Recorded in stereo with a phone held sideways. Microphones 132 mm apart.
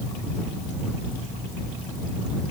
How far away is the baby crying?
No baby crying in this recording.